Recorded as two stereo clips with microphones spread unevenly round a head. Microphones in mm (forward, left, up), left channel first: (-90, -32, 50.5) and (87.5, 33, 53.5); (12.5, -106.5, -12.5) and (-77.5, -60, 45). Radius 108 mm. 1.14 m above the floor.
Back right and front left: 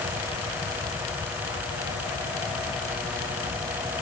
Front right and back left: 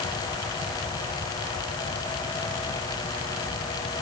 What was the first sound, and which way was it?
Only background noise.